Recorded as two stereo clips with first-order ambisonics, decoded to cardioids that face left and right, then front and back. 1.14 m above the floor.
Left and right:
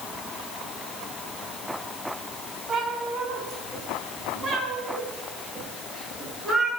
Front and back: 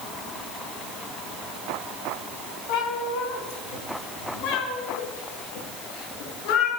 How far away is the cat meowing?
About 2.5 m.